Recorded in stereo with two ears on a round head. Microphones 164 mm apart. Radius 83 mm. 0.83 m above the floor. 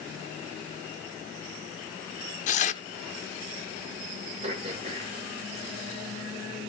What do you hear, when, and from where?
2.5 s tearing paper: 40° left (ahead or behind), 0.8 m
4.4 s throat clearing: 35° right (ahead or behind), 2.5 m